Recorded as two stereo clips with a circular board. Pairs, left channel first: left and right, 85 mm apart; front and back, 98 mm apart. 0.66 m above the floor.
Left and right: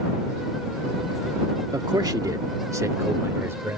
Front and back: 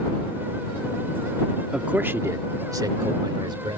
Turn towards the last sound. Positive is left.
turn(degrees=-150)